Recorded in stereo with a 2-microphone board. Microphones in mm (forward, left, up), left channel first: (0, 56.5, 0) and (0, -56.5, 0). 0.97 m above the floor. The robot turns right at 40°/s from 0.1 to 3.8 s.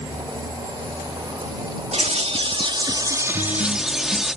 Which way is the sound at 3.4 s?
50° right (ahead or behind).